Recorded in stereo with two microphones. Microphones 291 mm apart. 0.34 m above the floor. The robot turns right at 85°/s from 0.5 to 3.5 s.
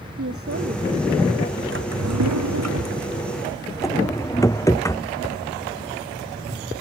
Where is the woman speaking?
50° right; by 1.6 s 45° left.